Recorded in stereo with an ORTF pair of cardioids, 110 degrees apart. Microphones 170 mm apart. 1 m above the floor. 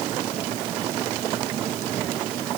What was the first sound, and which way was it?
Only background noise.